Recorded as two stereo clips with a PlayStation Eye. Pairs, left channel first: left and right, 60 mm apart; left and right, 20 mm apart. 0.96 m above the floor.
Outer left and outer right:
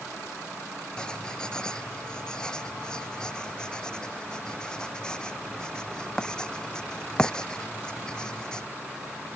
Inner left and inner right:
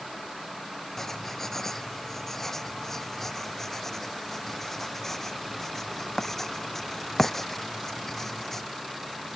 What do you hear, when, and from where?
1.0 s writing: 15° left (ahead or behind)